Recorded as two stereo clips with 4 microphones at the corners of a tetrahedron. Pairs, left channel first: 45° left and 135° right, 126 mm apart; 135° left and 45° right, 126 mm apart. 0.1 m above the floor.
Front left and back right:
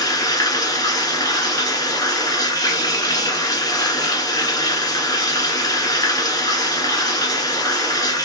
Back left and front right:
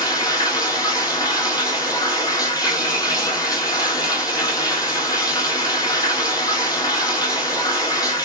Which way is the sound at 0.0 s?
90° left.